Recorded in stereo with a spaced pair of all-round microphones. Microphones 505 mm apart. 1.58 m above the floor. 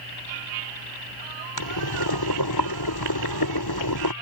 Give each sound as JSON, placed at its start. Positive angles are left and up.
{"t": 1.6, "sound": "boiling", "side_deg": 45}